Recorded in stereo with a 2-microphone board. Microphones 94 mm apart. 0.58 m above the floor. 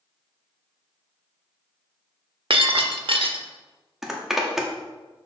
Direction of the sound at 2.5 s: 70° right (ahead or behind).